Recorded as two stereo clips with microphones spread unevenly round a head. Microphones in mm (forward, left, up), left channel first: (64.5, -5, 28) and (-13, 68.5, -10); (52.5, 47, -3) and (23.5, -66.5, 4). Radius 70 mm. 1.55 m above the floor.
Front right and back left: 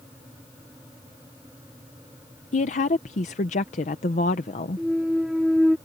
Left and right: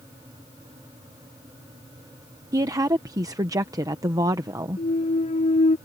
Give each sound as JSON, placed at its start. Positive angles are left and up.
{"t": 2.5, "sound": "a woman speaking", "azimuth_deg": -45}
{"t": 4.8, "sound": "a clunk", "azimuth_deg": 45}